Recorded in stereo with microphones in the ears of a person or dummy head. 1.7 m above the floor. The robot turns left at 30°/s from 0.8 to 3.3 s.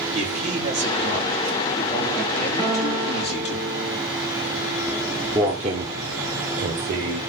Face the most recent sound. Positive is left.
turn(degrees=-55)  # may be behind; listen again after turning